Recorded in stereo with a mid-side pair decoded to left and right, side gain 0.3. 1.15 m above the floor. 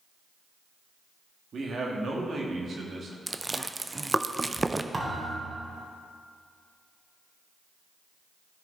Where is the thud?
40° right, 2.5 m.